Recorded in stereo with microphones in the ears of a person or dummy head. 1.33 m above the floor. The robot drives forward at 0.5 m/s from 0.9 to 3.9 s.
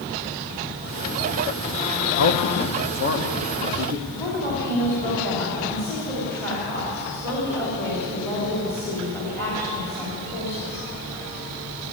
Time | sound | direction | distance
2.2 | a man speaking | 85° left | 0.9 m
4.1 | a woman speaking | 15° left (ahead or behind) | 3 m